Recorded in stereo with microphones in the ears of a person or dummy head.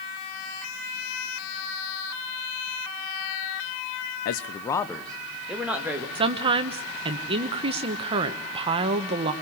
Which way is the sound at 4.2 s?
60° left (ahead or behind).